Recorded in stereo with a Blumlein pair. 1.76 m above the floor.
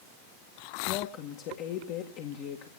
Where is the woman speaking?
40° left, 1.8 m.